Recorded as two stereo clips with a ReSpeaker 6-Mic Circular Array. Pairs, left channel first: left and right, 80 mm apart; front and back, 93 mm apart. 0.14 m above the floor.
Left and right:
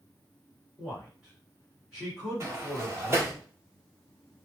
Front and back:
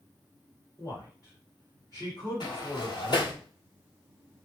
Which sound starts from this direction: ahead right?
A sliding door, at 2.4 s.